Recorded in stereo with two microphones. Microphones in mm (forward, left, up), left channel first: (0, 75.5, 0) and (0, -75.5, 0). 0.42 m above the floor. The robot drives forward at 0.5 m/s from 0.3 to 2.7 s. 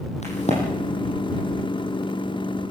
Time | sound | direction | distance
0.2 | a crack | 50° left (ahead or behind) | 9 m